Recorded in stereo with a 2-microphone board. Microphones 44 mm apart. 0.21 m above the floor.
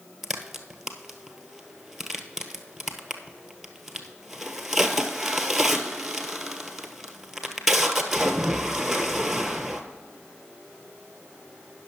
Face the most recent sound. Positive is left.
turn(degrees=-5)  # may be behind; listen again after turning